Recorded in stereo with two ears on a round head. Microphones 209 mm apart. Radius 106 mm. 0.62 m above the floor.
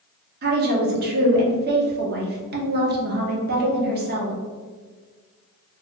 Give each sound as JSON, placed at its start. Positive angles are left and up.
{"t": 0.4, "sound": "a woman speaking", "side_deg": -45, "distance_m": 0.8}